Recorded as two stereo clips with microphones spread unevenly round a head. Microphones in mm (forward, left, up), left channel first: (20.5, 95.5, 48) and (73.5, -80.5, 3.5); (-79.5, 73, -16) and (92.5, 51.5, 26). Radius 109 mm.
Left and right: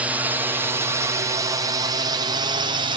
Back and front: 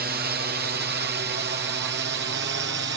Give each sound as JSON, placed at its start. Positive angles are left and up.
{"t": 0.0, "sound": "a drone", "azimuth_deg": -15}